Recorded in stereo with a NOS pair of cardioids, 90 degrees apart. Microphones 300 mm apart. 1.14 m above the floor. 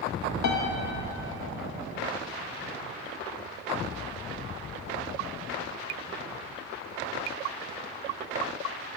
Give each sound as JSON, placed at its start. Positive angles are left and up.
{"t": 0.4, "sound": "a piano", "azimuth_deg": 65, "distance_m": 1.4}